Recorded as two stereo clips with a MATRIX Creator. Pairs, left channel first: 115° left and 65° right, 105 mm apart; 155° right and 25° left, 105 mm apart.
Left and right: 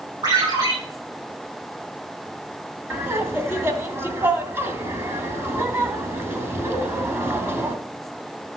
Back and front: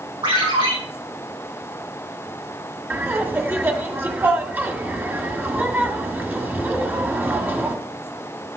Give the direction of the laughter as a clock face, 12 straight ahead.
1 o'clock.